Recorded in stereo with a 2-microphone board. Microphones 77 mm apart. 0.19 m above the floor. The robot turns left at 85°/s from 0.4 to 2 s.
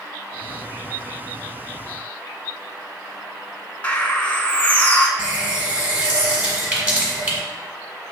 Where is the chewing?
I don't hear chewing.